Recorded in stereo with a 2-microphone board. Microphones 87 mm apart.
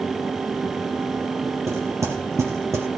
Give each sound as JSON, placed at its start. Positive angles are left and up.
{"t": 1.7, "sound": "knocking", "side_deg": -35, "distance_m": 3.5}